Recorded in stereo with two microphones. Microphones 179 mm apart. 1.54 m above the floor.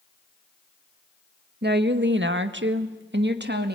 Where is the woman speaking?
60° right (ahead or behind), 1.7 m.